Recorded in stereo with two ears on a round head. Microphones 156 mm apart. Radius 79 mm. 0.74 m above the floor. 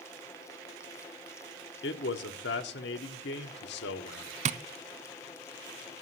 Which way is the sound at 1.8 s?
70° left (ahead or behind).